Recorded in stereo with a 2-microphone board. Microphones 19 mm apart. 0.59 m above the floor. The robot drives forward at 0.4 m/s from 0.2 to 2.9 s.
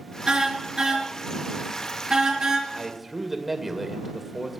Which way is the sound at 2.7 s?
20° right (ahead or behind).